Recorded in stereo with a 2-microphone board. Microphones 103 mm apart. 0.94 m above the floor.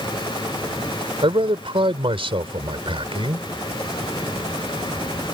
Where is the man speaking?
65° right (ahead or behind).